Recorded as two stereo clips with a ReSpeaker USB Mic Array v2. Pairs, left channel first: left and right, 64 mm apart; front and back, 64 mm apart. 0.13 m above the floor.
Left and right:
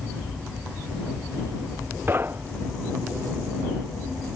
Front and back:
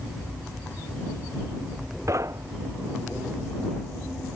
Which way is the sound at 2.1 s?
145° right.